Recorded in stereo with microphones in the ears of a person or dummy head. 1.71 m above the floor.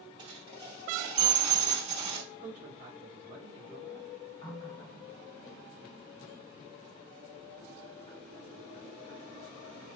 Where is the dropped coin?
25° right (ahead or behind), 1.9 m.